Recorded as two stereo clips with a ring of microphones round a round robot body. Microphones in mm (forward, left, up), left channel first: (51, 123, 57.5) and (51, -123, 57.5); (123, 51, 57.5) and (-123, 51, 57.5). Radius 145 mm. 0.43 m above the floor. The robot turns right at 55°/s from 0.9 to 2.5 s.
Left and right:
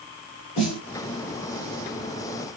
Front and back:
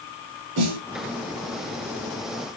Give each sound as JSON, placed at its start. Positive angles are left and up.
{"t": 0.6, "sound": "a snare drum", "azimuth_deg": 155, "distance_m": 2.5}